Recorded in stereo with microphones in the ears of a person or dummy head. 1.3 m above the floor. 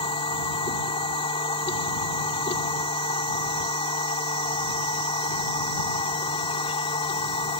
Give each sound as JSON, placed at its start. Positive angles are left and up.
{"t": 0.0, "sound": "a machine running", "side_deg": 30}